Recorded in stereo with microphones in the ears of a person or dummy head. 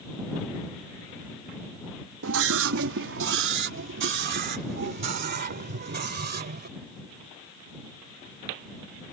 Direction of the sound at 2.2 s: 75° right (ahead or behind).